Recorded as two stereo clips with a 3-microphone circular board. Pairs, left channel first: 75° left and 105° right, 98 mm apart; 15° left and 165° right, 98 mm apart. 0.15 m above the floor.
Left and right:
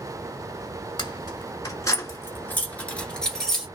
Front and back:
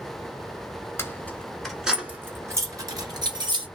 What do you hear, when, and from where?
1.0 s keys jangling: 75° left, 1.1 m; by 3.7 s 160° left, 1.7 m